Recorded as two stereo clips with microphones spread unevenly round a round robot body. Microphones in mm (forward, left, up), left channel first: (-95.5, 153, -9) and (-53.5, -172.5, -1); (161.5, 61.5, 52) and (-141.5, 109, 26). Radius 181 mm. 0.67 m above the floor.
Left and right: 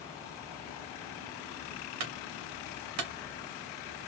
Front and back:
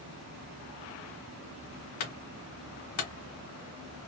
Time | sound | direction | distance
2.0 | a clunk | 45° right | 1.8 m